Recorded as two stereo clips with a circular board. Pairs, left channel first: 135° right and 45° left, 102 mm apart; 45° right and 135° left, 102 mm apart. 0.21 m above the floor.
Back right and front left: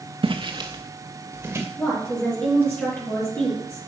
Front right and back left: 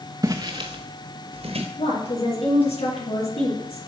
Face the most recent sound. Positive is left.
turn(degrees=-65)